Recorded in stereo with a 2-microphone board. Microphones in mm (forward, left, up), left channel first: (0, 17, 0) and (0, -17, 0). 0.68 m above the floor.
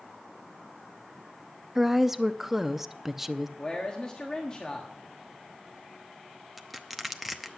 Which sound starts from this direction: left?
A man speaking, at 3.6 s.